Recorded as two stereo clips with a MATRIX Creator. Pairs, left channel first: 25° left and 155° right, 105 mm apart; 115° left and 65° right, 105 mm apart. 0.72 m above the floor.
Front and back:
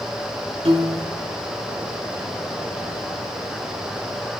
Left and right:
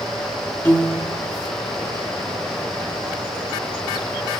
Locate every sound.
0.7 s a piano: straight behind, 1.0 m